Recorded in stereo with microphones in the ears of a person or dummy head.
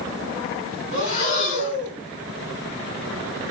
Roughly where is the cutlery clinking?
No cutlery clinking in this recording.